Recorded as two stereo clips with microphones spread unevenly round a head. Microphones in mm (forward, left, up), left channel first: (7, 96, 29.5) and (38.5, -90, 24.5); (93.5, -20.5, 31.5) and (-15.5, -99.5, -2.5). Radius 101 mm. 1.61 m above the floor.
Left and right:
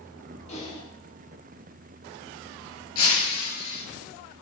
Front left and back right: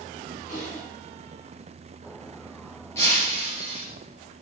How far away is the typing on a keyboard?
About 5 m.